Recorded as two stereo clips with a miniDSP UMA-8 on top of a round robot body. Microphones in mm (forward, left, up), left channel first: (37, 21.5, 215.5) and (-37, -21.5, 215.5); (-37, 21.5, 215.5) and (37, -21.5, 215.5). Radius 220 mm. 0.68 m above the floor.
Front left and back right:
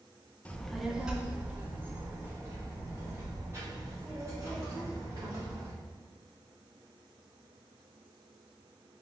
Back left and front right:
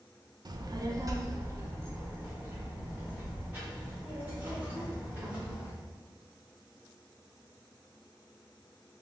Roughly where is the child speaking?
Ahead right.